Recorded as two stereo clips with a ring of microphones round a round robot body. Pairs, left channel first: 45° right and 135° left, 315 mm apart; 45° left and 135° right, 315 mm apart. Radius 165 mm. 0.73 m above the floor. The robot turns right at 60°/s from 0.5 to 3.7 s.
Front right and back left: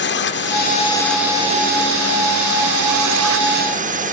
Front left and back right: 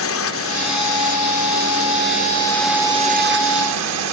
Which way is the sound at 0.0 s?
5° left.